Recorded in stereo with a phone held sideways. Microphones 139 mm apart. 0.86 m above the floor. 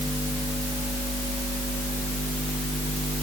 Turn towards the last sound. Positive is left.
No sound to turn to.